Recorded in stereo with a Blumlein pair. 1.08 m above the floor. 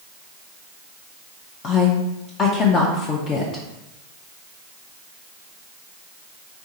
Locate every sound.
1.6 s a woman speaking: 25° left, 0.6 m